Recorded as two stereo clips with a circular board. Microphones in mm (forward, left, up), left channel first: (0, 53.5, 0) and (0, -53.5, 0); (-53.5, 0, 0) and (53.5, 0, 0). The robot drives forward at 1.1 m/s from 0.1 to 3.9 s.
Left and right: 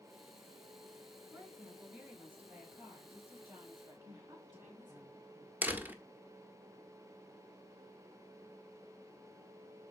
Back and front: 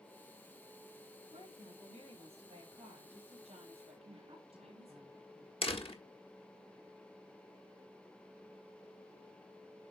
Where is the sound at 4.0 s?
40° right, 6.5 m.